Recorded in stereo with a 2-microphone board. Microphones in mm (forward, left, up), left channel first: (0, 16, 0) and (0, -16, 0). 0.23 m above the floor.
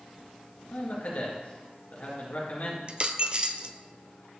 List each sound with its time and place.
0.7 s a man speaking: 55° left (ahead or behind), 3.5 m
2.9 s a dropped coin: 35° right (ahead or behind), 0.6 m